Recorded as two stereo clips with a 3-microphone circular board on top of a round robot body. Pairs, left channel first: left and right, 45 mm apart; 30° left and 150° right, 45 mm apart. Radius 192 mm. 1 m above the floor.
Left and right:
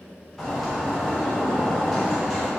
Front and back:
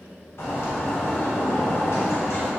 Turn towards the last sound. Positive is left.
turn(degrees=5)